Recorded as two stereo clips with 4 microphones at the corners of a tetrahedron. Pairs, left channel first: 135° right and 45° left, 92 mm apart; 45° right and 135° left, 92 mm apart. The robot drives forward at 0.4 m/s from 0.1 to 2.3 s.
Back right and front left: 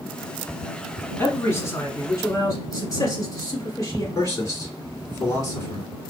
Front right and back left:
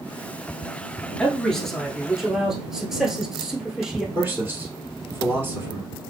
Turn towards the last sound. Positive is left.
turn(degrees=-170)